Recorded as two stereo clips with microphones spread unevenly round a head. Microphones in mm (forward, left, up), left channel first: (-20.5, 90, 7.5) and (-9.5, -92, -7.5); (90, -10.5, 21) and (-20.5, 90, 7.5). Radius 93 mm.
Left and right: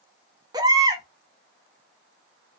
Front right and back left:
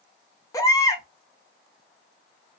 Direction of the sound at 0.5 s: 30° right.